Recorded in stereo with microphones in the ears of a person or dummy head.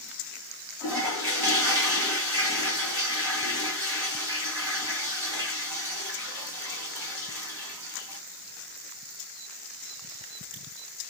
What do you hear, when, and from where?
0.8 s a toilet flushing: 10° right (ahead or behind), 2 m